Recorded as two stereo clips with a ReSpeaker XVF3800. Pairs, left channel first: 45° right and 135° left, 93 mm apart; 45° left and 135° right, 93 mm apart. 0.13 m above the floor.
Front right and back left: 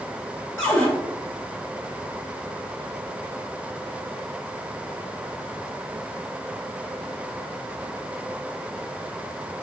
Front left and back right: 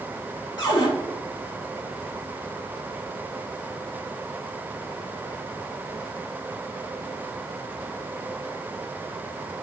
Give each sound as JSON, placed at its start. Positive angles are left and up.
{"t": 0.6, "sound": "a cupboard door", "azimuth_deg": 15, "distance_m": 2.0}